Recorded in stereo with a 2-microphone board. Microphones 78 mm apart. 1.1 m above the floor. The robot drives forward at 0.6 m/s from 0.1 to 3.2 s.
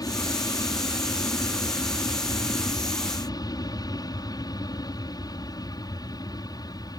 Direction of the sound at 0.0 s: 55° left (ahead or behind).